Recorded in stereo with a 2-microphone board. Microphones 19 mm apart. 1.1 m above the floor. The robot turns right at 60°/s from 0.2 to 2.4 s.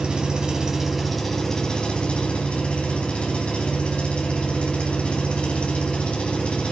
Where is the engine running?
50° right, 4.5 m; by 6.7 s 85° left, 4.5 m.